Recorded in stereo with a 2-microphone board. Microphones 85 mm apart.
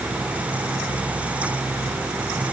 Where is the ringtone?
No ringtone in this recording.